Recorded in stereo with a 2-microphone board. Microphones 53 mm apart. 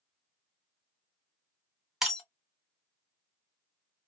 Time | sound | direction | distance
2.0 | breaking glass | 5° right (ahead or behind) | 1.1 m